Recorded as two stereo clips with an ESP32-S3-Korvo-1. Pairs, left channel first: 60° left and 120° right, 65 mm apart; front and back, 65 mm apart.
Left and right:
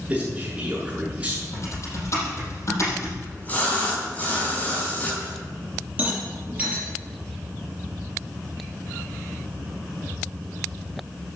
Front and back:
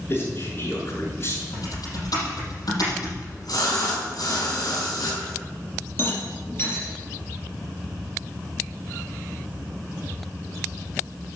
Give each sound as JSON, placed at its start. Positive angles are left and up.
{"t": 0.1, "sound": "a man speaking", "azimuth_deg": -45, "distance_m": 6.5}
{"t": 1.5, "sound": "typing on a keyboard", "azimuth_deg": 15, "distance_m": 6.0}
{"t": 3.2, "sound": "a splash", "azimuth_deg": -5, "distance_m": 3.5}
{"t": 6.0, "sound": "a rattle", "azimuth_deg": -50, "distance_m": 5.5}